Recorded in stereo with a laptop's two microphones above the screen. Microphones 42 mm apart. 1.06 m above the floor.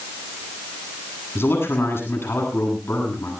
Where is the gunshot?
I don't hear a gunshot.